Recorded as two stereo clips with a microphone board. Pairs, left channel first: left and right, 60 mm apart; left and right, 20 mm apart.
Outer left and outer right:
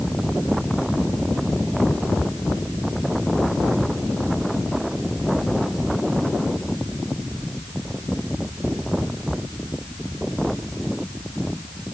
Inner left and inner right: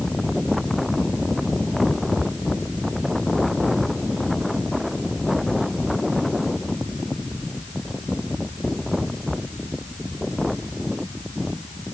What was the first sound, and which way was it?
Only background noise.